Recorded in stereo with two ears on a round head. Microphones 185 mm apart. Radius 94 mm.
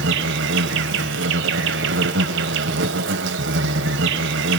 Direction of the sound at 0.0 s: 60° right (ahead or behind).